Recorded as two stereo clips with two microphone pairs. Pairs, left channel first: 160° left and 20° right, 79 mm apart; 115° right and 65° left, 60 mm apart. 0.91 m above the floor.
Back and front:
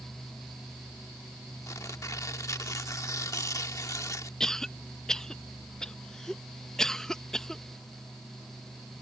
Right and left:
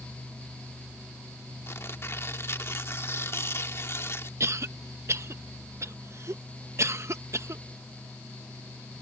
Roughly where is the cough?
Left.